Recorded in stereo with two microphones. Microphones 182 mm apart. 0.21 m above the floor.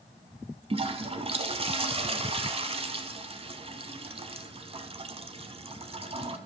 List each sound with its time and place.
0.7 s a toilet flushing: 35° right (ahead or behind), 0.7 m